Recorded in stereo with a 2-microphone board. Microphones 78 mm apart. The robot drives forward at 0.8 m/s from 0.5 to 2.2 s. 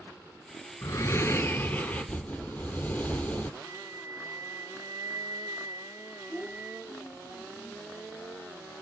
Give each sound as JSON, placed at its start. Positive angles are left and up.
{"t": 0.8, "sound": "breathing", "side_deg": 45, "distance_m": 0.6}
{"t": 3.6, "sound": "a flute", "side_deg": -40, "distance_m": 2.5}
{"t": 6.3, "sound": "a child speaking", "side_deg": 30, "distance_m": 8.5}